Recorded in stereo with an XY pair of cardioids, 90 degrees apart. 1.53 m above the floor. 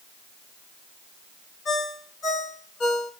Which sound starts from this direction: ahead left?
A ringtone, at 1.6 s.